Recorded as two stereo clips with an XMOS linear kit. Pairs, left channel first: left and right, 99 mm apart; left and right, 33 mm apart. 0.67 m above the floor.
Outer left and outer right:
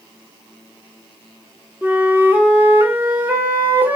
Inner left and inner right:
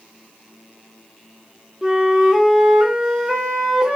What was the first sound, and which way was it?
A flute, 20° right (ahead or behind).